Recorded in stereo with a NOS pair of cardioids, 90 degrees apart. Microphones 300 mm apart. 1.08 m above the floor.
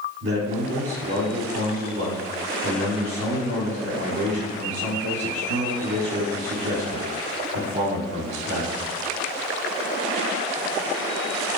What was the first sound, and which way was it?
A man speaking, 40° right.